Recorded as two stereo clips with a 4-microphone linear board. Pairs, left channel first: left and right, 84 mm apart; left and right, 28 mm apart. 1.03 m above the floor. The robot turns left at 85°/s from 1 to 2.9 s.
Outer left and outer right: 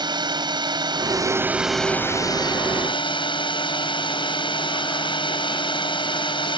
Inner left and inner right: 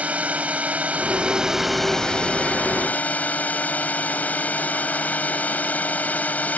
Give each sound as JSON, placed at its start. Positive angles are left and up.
{"t": 0.0, "sound": "a drone", "azimuth_deg": -115}